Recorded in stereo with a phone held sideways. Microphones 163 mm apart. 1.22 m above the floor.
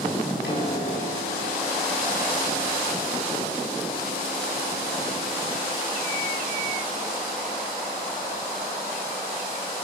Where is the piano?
85° left, 6.5 m.